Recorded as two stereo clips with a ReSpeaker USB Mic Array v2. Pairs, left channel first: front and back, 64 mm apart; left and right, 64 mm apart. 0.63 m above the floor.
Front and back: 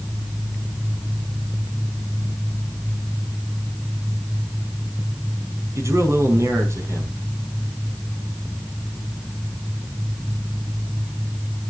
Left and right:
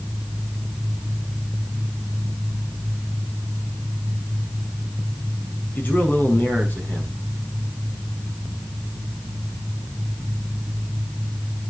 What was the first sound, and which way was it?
A man speaking, 145° left.